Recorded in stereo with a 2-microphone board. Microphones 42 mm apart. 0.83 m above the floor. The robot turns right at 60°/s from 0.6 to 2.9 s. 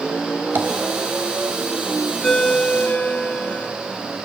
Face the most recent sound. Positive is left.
turn(degrees=45)